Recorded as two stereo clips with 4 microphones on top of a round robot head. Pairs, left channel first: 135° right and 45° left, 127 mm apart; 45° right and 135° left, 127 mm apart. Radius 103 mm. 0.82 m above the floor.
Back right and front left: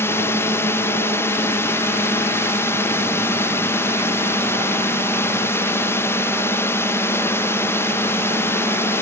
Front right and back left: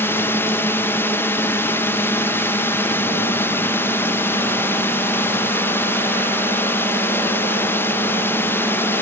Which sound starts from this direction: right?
A drone, at 0.0 s.